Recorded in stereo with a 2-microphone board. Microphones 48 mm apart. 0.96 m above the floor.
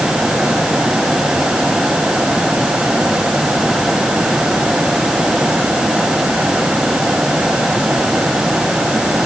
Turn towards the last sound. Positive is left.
No sound to turn to.